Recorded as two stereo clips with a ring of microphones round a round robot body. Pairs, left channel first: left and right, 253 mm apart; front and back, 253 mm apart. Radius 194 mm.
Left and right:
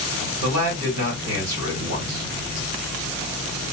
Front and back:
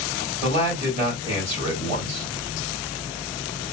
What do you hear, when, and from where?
0.4 s a man speaking: 120° right, 2 m